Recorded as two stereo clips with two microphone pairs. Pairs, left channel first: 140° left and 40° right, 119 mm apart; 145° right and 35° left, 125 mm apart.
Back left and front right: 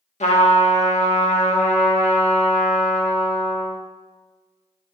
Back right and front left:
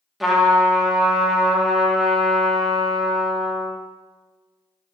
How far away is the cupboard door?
I don't hear a cupboard door.